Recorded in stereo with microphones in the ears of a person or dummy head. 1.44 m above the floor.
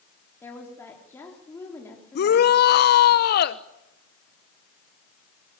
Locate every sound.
0.4 s a woman speaking: 15° left (ahead or behind), 3.5 m
2.1 s a shout: 55° left (ahead or behind), 1.1 m